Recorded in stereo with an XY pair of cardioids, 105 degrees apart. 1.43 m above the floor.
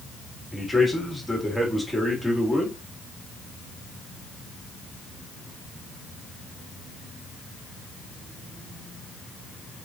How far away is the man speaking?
About 1.9 m.